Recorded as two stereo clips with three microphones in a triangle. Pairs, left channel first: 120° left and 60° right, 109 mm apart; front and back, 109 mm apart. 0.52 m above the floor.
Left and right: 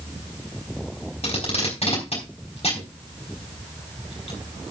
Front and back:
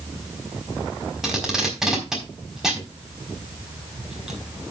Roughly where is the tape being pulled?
Left.